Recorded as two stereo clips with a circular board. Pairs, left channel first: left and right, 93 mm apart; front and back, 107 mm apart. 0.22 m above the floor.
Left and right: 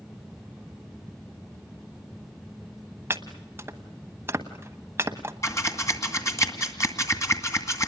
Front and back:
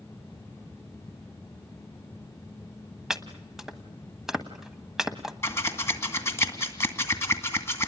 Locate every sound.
3.1 s chopping: 100° right, 1.3 m
5.4 s scissors: 50° left, 2 m